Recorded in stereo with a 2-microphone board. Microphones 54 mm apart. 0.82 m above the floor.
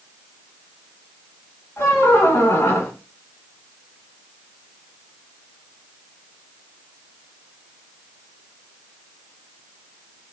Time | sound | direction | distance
1.8 | a squeak | 50° left (ahead or behind) | 0.9 m